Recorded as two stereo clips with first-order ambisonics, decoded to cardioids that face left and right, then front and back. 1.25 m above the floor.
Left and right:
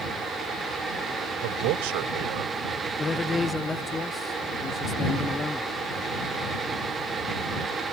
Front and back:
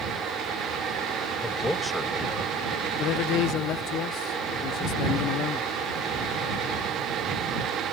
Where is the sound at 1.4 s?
85° right; by 2.5 s 90° right.